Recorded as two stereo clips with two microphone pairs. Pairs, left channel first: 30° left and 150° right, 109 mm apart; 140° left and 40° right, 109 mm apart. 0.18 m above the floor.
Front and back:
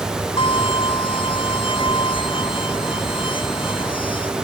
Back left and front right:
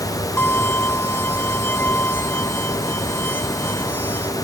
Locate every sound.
0.4 s a violin: 65° left